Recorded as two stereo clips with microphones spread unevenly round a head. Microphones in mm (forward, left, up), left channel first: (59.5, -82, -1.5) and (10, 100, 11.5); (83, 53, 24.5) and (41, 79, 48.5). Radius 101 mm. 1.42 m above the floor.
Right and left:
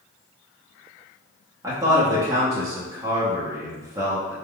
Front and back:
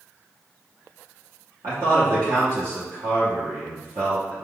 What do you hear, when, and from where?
1.6 s a man speaking: straight behind, 0.8 m